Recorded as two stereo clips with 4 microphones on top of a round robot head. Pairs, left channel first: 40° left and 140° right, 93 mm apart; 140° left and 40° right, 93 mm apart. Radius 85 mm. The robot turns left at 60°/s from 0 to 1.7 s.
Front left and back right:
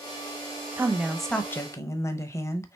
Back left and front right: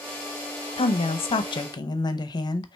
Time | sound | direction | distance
0.8 | a woman speaking | 155° left | 0.7 m